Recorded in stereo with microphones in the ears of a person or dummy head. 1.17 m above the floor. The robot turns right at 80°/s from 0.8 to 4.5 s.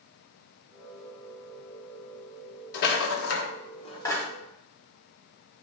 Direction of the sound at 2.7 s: 50° left (ahead or behind).